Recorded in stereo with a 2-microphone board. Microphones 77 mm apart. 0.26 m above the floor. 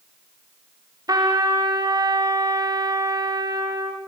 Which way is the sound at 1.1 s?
60° right (ahead or behind).